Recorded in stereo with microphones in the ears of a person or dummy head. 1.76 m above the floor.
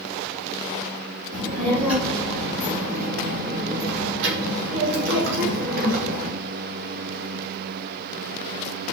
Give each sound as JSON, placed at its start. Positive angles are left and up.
{"t": 1.3, "sound": "a child speaking", "side_deg": -30, "distance_m": 1.9}